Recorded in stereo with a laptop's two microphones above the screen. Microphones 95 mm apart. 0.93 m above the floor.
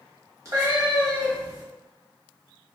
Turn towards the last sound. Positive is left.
turn(degrees=-35)  # may be behind; listen again after turning